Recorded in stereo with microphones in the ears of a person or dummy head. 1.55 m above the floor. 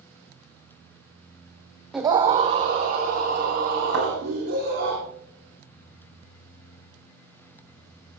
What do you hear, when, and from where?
1.9 s a scream: centre (ahead or behind), 0.7 m; by 4.9 s 55° right (ahead or behind), 5 m
3.9 s a thud: 80° right, 9 m